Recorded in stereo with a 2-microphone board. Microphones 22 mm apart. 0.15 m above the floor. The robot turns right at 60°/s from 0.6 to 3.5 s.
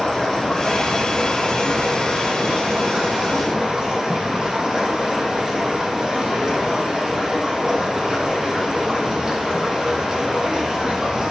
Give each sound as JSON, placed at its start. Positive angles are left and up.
{"t": 0.0, "sound": "running water", "azimuth_deg": 165, "distance_m": 5.0}